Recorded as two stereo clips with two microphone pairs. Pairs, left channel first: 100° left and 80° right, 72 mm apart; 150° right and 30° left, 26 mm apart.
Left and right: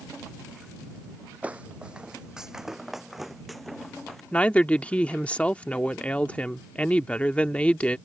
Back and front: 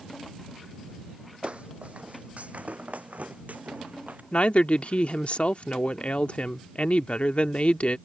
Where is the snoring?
I don't hear snoring.